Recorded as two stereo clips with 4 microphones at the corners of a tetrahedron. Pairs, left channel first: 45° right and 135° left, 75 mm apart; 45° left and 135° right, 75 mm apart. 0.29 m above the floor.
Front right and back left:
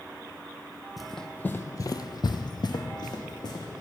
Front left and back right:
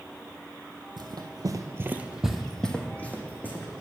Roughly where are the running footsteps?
Behind right.